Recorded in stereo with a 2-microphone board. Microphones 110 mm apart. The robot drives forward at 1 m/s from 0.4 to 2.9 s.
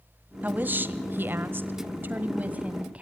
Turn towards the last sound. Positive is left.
turn(degrees=-15)  # may be behind; listen again after turning